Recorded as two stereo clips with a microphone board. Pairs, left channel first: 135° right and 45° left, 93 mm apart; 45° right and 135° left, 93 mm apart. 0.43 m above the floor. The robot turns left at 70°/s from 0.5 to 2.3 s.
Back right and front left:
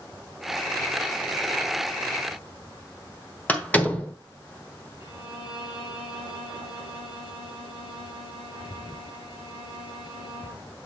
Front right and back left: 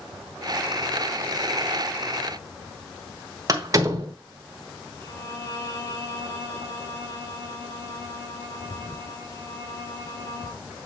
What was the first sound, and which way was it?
A door slam, 160° left.